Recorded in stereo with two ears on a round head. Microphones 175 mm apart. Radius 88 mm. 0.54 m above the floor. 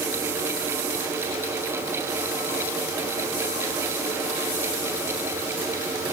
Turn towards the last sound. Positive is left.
No sound to turn to.